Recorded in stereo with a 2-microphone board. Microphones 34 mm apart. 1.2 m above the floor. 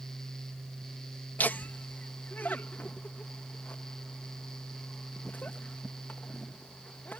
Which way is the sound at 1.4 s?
65° left (ahead or behind).